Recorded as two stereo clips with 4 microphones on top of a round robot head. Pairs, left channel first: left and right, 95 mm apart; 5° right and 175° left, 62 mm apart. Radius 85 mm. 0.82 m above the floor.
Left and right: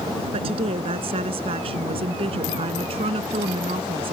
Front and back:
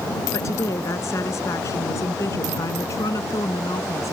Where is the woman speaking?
55° right.